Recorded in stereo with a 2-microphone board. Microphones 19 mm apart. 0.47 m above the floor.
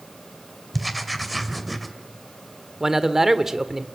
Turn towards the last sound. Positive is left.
turn(degrees=-20)  # may be behind; listen again after turning